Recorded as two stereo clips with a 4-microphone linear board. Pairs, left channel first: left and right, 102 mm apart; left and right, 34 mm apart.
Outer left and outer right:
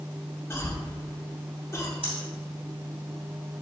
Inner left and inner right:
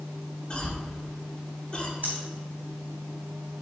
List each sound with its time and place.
0.5 s a cough: 25° left (ahead or behind), 1.6 m
2.0 s breathing: 70° right (ahead or behind), 2.5 m